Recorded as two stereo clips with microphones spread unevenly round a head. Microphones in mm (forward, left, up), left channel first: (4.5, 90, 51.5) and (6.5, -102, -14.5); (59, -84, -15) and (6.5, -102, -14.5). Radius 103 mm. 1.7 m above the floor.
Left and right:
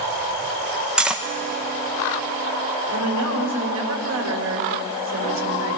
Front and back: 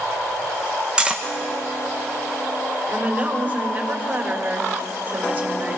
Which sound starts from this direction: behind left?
Cutlery clinking, at 1.0 s.